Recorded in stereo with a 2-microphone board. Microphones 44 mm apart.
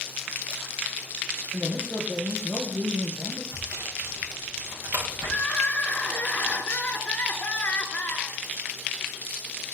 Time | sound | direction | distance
1.5 | a man speaking | 10° right (ahead or behind) | 3 m
3.5 | sawing | 85° right | 6 m
5.2 | crying | 30° left (ahead or behind) | 2 m